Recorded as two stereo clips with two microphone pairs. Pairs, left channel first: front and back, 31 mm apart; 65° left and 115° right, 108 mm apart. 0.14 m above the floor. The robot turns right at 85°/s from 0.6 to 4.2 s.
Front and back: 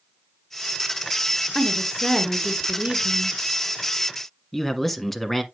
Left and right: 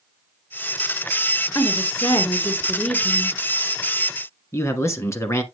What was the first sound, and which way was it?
A woman speaking, 30° left.